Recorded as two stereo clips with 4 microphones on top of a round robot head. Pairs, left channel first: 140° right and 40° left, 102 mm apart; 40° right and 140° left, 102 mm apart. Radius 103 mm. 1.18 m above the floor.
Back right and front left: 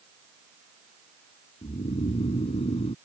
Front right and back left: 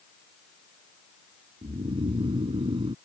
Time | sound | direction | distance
1.6 | snoring | 175° right | ?